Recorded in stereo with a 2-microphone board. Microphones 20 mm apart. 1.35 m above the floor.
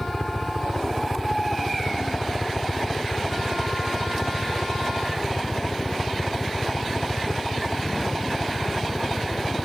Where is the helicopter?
25° left (ahead or behind); by 9.7 s 50° left (ahead or behind).